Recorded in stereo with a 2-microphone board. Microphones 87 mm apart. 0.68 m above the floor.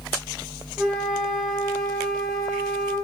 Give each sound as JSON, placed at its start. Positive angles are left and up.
{"t": 0.8, "sound": "a flute", "side_deg": -5, "distance_m": 5.5}